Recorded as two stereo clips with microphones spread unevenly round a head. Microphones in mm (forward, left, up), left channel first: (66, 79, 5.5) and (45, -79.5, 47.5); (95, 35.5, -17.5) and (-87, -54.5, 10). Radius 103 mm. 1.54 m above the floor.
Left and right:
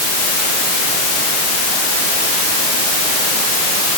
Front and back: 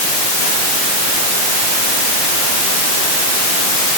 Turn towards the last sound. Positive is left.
No sound to turn to.